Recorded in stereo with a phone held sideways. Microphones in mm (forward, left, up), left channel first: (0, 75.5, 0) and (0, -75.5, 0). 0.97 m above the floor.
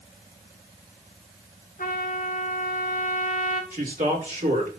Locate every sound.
1.8 s a trumpet: 70° left (ahead or behind), 2.5 m
3.7 s a man speaking: 70° right (ahead or behind), 4 m